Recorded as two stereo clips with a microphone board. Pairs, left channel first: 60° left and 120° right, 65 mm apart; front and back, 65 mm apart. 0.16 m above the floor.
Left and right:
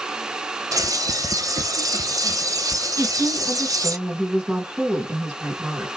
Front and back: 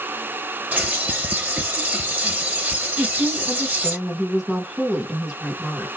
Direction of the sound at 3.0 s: 120° right.